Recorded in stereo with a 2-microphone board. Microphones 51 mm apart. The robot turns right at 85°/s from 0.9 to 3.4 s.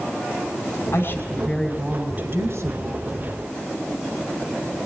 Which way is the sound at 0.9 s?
115° left.